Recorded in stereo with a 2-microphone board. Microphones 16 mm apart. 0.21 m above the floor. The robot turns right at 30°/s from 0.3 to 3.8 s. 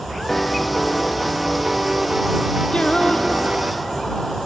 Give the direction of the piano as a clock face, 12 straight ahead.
7 o'clock.